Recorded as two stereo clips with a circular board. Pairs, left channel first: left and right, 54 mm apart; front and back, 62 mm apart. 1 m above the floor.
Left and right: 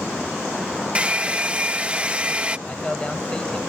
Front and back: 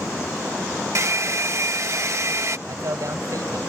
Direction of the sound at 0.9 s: 155° right.